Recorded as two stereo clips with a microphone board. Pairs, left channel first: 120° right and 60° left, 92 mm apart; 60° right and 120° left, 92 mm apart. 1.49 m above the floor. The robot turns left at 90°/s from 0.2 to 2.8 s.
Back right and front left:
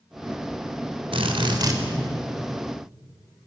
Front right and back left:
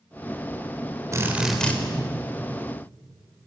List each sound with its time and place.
1.1 s a drill: 65° left, 3.5 m; by 1.8 s 5° left, 3.5 m